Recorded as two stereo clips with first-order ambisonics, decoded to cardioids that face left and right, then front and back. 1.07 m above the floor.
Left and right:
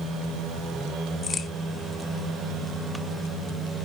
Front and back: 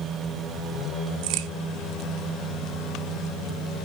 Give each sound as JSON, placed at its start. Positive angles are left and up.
{"t": 1.2, "sound": "a crack", "azimuth_deg": 160, "distance_m": 0.6}